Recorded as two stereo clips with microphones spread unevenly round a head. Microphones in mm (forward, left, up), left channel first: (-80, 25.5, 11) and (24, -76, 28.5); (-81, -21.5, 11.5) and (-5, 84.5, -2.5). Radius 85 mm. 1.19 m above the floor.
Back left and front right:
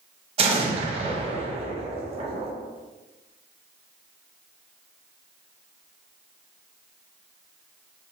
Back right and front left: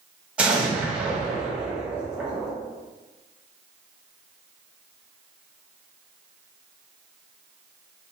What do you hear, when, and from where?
0.4 s an explosion: 15° right, 0.6 m